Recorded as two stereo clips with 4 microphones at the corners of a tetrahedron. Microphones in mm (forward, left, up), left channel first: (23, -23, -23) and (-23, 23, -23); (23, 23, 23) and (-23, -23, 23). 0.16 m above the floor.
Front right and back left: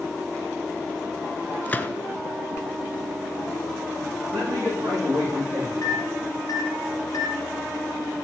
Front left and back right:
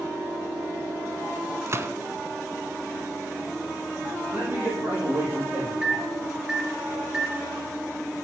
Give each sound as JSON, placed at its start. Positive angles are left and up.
{"t": 1.7, "sound": "a gunshot", "azimuth_deg": -100, "distance_m": 0.7}
{"t": 4.3, "sound": "a man speaking", "azimuth_deg": 165, "distance_m": 8.5}
{"t": 5.8, "sound": "a microwave", "azimuth_deg": -55, "distance_m": 2.5}